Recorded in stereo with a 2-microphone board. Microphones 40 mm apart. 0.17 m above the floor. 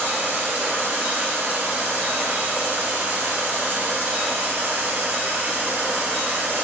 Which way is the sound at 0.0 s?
55° right (ahead or behind).